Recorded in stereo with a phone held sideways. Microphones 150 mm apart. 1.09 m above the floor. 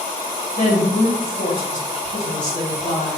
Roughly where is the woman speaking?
Left.